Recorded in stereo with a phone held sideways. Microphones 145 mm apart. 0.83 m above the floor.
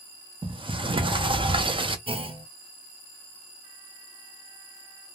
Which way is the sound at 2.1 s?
35° right (ahead or behind).